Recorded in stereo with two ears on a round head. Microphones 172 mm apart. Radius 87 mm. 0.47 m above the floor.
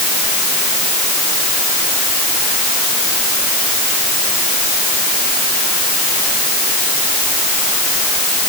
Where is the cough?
No cough in this recording.